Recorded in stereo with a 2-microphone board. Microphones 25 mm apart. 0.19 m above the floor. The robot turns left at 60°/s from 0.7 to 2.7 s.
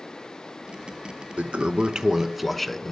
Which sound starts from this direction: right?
A toilet flushing, at 1.4 s.